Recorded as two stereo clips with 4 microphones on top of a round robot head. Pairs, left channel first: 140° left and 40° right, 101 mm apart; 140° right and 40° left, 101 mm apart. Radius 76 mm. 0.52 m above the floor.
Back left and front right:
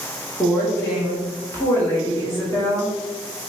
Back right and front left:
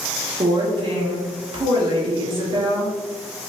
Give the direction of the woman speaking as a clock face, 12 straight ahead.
9 o'clock.